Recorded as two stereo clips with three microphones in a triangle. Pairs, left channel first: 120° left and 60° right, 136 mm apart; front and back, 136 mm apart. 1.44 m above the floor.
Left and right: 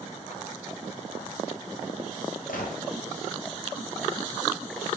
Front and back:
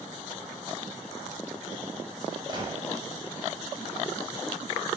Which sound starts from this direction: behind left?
A gunshot, at 2.5 s.